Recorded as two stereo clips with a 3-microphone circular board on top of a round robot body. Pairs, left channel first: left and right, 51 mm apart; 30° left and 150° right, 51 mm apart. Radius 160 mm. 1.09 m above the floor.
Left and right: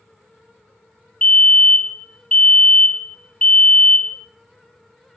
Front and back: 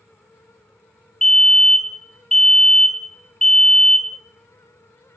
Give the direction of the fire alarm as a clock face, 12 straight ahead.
9 o'clock.